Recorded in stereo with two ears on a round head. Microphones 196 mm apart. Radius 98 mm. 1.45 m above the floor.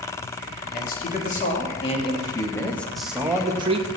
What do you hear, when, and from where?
0.7 s a man speaking: 40° left (ahead or behind), 3 m; by 3.9 s 30° right (ahead or behind), 1.7 m